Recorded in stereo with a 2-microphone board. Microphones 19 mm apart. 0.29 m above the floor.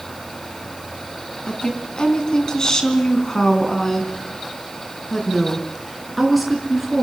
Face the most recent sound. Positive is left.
turn(degrees=-5)  # may be behind; listen again after turning